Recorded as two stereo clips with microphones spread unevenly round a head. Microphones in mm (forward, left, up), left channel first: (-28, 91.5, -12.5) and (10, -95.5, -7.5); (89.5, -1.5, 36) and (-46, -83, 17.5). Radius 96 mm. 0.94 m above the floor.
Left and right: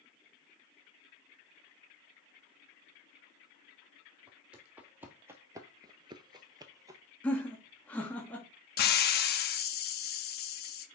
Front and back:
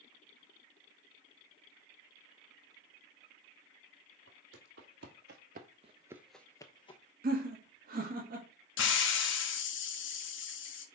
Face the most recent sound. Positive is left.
turn(degrees=60)